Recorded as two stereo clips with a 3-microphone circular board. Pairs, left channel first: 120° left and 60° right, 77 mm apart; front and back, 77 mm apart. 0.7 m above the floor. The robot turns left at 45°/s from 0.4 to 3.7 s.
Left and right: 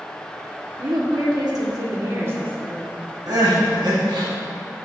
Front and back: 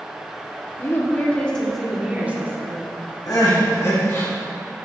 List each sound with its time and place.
0.8 s a woman speaking: 45° right, 1.8 m; by 2.9 s 135° right, 1.8 m
3.3 s crying: 30° right, 3 m; by 4.3 s 50° right, 3 m